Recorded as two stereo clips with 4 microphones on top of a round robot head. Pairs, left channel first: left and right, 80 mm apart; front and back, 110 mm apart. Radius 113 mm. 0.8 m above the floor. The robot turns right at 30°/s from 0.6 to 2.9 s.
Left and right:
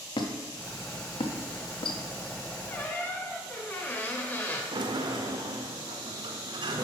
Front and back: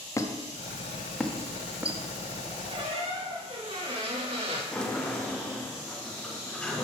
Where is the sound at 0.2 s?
65° left, 0.7 m; by 2.0 s 105° left, 0.7 m.